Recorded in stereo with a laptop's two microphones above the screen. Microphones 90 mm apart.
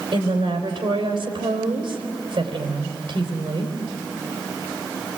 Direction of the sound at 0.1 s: 75° right (ahead or behind).